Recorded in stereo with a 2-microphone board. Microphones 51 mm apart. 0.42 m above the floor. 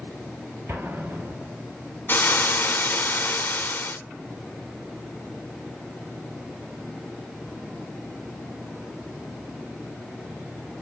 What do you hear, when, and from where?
0.7 s an explosion: 50° right (ahead or behind), 1.7 m
2.1 s frying: 40° left (ahead or behind), 0.8 m